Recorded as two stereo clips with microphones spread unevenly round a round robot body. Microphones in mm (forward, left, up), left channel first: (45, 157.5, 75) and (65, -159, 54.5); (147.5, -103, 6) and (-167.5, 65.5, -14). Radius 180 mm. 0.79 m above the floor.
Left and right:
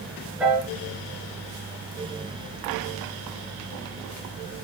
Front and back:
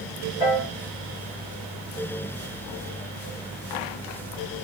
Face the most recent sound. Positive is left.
turn(degrees=0)